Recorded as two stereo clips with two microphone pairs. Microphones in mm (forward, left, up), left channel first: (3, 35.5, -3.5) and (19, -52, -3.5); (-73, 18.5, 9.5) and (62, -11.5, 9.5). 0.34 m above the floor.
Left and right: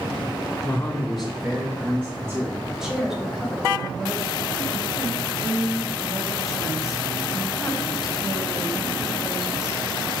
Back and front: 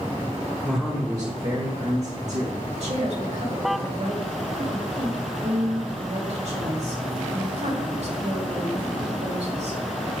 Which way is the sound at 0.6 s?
105° left.